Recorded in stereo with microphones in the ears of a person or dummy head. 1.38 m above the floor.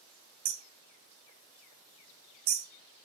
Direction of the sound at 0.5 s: 30° right (ahead or behind).